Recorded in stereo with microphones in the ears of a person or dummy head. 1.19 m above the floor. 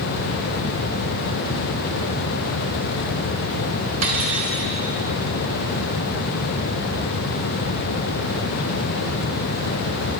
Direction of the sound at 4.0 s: 50° right (ahead or behind).